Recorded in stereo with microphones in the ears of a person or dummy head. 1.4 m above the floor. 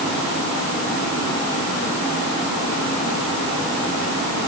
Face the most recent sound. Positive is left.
No sound to turn to.